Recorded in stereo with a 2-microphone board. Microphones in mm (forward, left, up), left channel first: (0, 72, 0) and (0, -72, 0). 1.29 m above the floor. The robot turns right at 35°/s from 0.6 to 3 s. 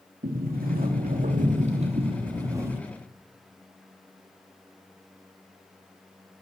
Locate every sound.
0.2 s a sliding door: 90° right, 2.5 m; by 2.8 s 15° right, 2.5 m